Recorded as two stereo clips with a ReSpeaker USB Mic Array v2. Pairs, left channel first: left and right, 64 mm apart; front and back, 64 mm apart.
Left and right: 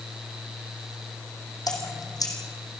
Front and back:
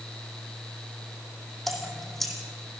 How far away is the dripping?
About 3.5 m.